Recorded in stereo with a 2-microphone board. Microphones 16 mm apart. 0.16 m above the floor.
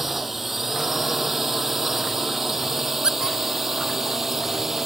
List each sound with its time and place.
0.0 s a drone: 10° right (ahead or behind); by 4.9 s 20° right (ahead or behind)
3.0 s a squeak: 60° right (ahead or behind)